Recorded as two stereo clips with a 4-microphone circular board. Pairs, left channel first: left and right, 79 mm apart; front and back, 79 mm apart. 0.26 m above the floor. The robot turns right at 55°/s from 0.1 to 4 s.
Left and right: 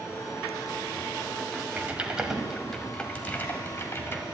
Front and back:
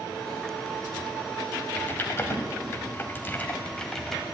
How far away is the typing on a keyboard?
About 1.2 m.